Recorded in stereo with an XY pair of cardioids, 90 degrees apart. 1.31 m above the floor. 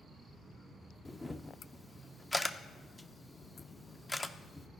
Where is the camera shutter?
10° left, 0.6 m.